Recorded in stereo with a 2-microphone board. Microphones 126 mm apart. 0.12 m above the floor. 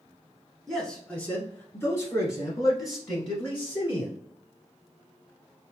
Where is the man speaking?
5° left (ahead or behind), 1.2 m; by 4.2 s 35° left (ahead or behind), 1.9 m.